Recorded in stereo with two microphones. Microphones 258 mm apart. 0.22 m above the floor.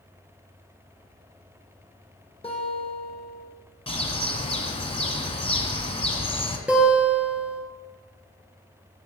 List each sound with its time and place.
2.4 s a guitar: 20° left (ahead or behind), 1.7 m
3.9 s a bird: 20° left (ahead or behind), 1.0 m
6.7 s a guitar: 5° right (ahead or behind), 1.7 m